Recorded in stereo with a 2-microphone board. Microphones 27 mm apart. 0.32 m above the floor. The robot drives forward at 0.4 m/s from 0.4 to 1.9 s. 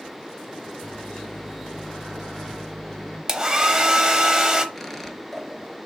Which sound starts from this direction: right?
A hair dryer, at 3.3 s.